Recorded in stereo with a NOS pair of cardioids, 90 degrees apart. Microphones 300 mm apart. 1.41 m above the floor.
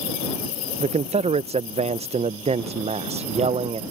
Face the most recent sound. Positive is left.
turn(degrees=-20)